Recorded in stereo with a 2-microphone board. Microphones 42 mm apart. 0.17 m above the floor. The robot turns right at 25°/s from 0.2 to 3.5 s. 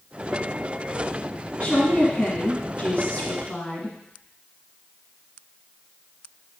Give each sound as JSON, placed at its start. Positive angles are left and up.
{"t": 1.6, "sound": "a woman speaking", "azimuth_deg": 75, "distance_m": 1.5}